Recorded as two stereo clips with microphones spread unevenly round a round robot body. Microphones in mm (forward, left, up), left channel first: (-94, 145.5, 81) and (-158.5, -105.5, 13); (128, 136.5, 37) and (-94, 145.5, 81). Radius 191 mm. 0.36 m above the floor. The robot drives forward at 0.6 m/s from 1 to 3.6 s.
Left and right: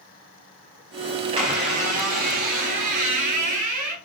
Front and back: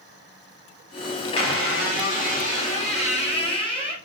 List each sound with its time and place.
1.4 s a squeak: 50° right, 1.4 m; by 4.0 s 115° right, 1.1 m